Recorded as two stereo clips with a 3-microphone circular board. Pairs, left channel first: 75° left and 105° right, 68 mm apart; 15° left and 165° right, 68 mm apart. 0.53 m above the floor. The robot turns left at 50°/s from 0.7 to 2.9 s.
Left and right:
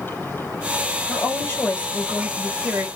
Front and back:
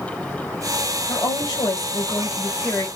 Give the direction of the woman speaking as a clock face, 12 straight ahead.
11 o'clock.